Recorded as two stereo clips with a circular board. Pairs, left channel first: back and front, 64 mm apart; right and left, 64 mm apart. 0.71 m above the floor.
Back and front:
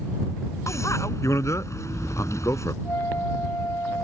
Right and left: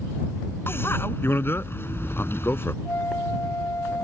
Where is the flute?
135° right.